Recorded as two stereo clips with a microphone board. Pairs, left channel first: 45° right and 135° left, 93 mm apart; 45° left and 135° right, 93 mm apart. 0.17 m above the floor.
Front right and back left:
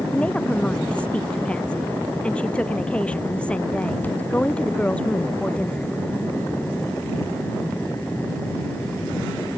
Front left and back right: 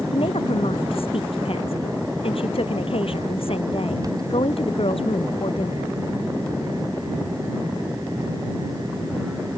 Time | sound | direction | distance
0.1 | a woman speaking | 35° left | ?